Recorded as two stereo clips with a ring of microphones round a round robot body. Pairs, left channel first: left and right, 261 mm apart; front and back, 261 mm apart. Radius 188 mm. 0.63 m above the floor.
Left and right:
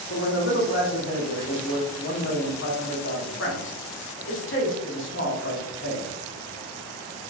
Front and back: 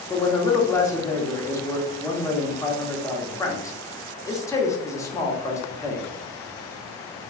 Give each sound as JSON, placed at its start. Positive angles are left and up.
{"t": 0.1, "sound": "a man speaking", "azimuth_deg": 75, "distance_m": 1.3}